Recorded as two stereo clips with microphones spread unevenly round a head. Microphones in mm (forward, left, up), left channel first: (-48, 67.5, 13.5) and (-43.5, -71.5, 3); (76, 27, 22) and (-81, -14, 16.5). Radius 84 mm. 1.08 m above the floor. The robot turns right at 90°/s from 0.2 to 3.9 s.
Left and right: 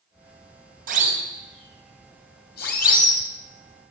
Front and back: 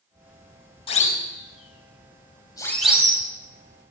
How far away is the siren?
About 6.5 m.